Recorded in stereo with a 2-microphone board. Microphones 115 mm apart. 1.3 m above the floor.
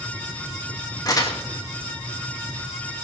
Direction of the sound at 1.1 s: 30° left (ahead or behind).